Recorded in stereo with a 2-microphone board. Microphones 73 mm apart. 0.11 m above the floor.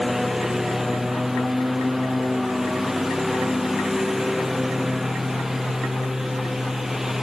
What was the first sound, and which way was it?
A lawn mower, 5° right (ahead or behind).